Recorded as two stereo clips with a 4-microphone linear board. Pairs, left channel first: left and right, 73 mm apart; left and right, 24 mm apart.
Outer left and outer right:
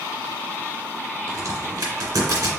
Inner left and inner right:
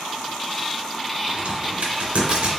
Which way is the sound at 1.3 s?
65° right (ahead or behind).